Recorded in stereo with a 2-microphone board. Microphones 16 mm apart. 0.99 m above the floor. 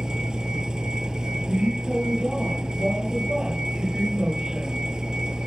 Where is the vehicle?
60° right (ahead or behind).